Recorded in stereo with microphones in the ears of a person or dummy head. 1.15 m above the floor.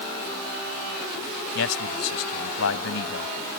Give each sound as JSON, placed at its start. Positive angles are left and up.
{"t": 1.6, "sound": "a man speaking", "side_deg": 85}